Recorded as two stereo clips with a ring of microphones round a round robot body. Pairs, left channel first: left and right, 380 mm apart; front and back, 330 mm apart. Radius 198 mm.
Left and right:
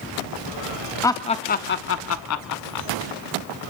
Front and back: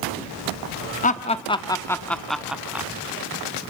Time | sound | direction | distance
1.0 | laughter | 20° left | 0.9 m